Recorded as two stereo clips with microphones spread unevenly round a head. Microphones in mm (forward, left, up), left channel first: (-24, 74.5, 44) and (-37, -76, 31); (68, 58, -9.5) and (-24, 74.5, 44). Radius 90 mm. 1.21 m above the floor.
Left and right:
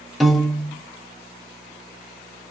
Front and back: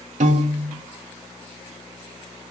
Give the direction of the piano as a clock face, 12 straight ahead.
6 o'clock.